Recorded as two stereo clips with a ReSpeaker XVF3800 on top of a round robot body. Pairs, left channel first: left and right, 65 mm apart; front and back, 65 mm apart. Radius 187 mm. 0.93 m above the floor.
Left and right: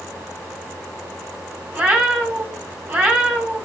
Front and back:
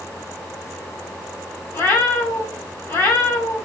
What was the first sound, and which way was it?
A cat meowing, 40° right.